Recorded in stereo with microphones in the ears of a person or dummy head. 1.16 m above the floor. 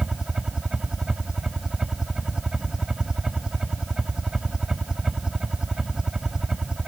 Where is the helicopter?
5° right (ahead or behind).